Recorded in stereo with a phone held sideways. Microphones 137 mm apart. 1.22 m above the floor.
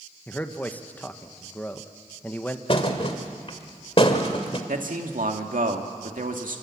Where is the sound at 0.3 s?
10° left (ahead or behind), 1.2 m.